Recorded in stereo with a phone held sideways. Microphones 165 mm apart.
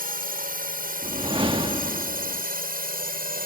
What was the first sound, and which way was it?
A drone, 65° right (ahead or behind).